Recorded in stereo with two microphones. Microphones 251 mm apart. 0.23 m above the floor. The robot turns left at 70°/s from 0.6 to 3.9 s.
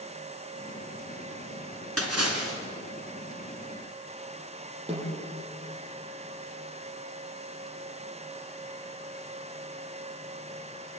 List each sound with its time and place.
2.0 s a splash: 70° right, 3 m; by 2.6 s 115° right, 3 m
4.9 s a snare drum: 20° right (ahead or behind), 8 m